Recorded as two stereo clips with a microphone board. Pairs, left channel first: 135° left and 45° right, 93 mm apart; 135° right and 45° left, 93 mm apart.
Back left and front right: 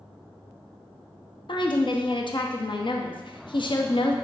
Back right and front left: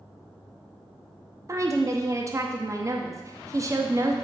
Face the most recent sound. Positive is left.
turn(degrees=100)